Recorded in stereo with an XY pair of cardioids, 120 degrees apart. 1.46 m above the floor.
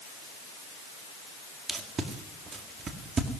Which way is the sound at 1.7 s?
40° right.